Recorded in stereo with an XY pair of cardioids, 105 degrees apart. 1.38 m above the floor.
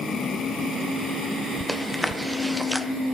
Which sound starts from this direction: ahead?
Chewing, at 1.7 s.